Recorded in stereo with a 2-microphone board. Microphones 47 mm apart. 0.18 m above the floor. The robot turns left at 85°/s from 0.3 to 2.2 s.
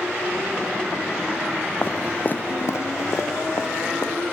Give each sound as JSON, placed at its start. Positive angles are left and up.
{"t": 1.8, "sound": "footsteps", "side_deg": 45, "distance_m": 0.7}